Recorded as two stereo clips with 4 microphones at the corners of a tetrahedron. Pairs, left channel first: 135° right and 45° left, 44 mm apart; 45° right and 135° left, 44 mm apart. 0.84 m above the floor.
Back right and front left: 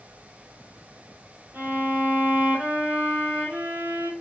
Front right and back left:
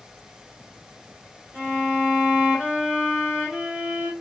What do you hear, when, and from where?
1.5 s a violin: 80° left, 1.8 m